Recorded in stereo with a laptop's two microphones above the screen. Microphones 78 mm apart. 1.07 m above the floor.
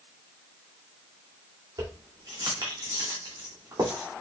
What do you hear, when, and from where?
1.8 s keys jangling: 55° right (ahead or behind), 2.5 m